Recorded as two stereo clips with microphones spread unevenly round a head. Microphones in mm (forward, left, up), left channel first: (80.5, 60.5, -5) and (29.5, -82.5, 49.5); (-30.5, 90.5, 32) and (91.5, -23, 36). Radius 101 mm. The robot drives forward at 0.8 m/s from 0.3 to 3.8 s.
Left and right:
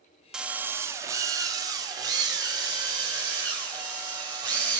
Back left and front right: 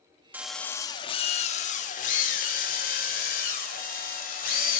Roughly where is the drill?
Right.